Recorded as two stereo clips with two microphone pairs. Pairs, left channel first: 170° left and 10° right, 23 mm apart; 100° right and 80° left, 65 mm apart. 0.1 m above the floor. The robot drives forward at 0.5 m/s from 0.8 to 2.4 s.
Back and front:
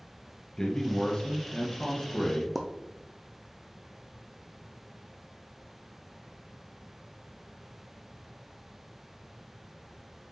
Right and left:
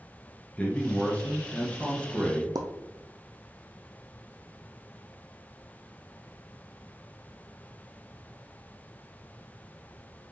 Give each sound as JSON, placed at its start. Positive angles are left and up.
{"t": 0.6, "sound": "a man speaking", "azimuth_deg": -150, "distance_m": 1.6}
{"t": 2.5, "sound": "a pop", "azimuth_deg": 80, "distance_m": 1.0}